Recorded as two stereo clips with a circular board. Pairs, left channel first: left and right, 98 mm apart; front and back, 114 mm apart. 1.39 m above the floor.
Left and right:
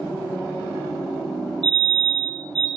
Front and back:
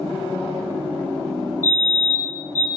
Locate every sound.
1.6 s a fire alarm: 65° right, 9 m